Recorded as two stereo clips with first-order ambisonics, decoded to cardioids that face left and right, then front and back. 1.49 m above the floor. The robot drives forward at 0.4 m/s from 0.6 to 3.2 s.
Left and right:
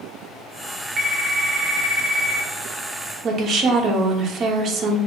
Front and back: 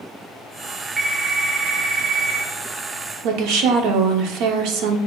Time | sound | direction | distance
1.0 | a phone ringing | 85° right | 0.5 m
3.2 | a woman speaking | 150° right | 0.6 m